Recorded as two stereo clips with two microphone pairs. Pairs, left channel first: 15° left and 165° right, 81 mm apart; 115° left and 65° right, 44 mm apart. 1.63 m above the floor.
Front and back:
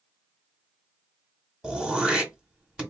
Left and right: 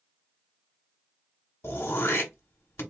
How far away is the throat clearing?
About 1.2 m.